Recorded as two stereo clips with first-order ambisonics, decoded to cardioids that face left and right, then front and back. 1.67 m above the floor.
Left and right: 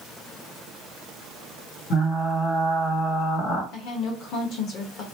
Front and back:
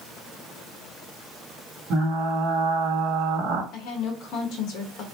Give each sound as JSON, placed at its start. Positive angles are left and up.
{"t": 1.9, "sound": "frying", "azimuth_deg": 140, "distance_m": 1.5}
{"t": 3.7, "sound": "a woman speaking", "azimuth_deg": 40, "distance_m": 1.2}